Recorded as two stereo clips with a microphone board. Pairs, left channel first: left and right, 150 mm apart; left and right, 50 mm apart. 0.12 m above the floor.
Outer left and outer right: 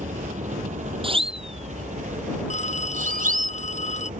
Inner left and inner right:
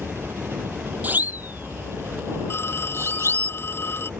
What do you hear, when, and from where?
0.0 s a helicopter: 55° right (ahead or behind)
1.0 s a siren: 35° right (ahead or behind); by 3.5 s 65° right (ahead or behind)
2.5 s a phone ringing: 50° left (ahead or behind)